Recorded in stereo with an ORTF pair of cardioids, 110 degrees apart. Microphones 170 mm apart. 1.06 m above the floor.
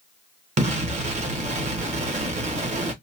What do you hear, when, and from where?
0.6 s an explosion: 45° right, 1.0 m